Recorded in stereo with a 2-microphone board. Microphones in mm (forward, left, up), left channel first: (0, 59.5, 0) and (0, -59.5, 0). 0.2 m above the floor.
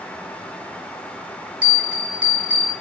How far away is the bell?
About 0.8 m.